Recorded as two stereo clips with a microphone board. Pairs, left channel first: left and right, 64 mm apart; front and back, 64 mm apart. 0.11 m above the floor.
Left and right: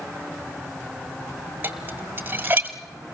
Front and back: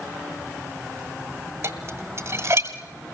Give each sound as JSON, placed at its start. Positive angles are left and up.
{"t": 1.6, "sound": "dishes clattering", "azimuth_deg": -150, "distance_m": 1.6}